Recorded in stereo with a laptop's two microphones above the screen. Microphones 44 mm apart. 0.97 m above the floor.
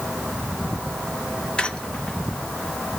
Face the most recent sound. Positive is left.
turn(degrees=20)  # may be behind; listen again after turning